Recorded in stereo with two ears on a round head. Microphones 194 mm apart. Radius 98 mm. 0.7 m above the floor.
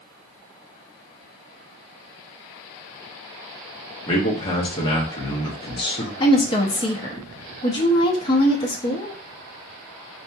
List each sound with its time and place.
4.1 s a man speaking: 20° left (ahead or behind), 0.7 m
6.2 s a woman speaking: 20° left (ahead or behind), 0.6 m